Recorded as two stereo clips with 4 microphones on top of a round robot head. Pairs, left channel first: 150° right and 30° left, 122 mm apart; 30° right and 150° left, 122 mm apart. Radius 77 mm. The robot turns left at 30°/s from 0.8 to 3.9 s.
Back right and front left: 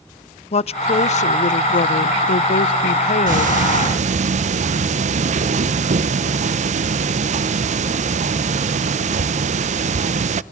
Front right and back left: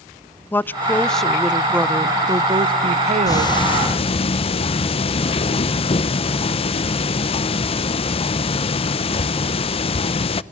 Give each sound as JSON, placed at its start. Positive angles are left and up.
{"t": 0.5, "sound": "a woman speaking", "azimuth_deg": -105, "distance_m": 0.5}
{"t": 3.3, "sound": "ticking", "azimuth_deg": 30, "distance_m": 0.7}